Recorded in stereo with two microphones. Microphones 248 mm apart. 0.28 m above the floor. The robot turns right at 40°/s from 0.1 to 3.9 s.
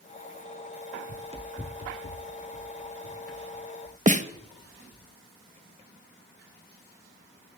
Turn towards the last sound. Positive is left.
turn(degrees=-30)  # may be behind; listen again after turning